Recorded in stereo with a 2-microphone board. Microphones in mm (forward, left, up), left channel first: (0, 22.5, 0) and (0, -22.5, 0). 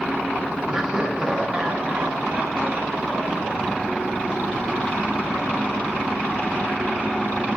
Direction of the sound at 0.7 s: 15° right (ahead or behind).